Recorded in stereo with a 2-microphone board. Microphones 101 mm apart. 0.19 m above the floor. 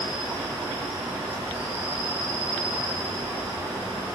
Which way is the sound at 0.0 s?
15° right (ahead or behind).